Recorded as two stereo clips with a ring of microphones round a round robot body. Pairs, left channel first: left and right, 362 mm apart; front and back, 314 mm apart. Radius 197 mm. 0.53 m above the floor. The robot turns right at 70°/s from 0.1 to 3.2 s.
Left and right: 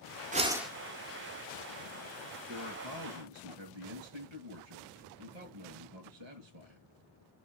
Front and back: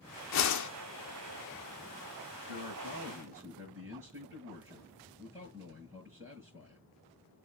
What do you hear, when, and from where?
0.3 s a whoosh: 25° right, 1.3 m; by 0.7 s 5° left, 1.3 m
2.5 s a man speaking: 150° right, 7.5 m; by 6.8 s 100° right, 7.5 m